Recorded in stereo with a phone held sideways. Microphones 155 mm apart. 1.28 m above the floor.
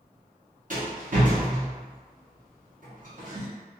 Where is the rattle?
60° right (ahead or behind), 1.3 m.